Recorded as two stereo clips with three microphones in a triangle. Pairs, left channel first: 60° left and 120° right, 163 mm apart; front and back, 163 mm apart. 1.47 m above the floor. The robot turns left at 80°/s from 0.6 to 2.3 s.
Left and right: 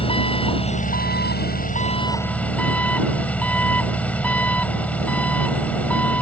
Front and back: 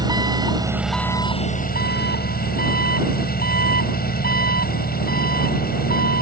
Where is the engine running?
115° left; by 6.2 s 20° right.